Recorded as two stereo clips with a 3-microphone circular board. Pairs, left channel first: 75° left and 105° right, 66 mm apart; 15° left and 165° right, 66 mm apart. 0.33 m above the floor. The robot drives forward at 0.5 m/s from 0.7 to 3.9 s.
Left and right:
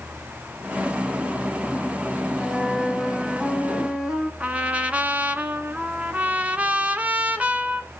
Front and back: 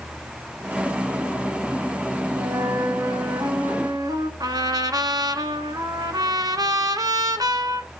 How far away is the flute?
About 0.6 m.